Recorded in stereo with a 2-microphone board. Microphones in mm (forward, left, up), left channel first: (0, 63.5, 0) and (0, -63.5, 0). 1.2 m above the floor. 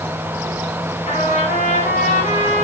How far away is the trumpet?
About 8 m.